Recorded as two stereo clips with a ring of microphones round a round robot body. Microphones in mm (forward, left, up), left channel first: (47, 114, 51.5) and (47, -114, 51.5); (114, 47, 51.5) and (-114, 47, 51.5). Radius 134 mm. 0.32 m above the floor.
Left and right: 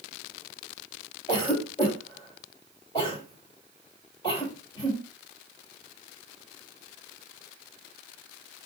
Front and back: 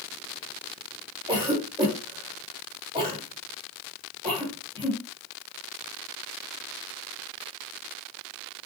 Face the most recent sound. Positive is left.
turn(degrees=135)